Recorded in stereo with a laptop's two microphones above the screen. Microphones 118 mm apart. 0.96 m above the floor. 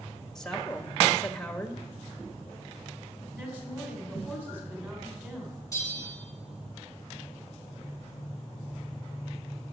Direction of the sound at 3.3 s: 15° right (ahead or behind).